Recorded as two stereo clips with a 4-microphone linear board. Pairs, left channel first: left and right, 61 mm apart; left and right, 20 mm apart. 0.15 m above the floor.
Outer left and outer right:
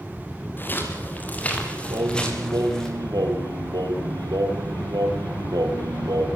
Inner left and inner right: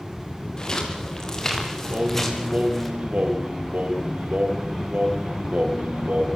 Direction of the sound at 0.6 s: 30° left (ahead or behind).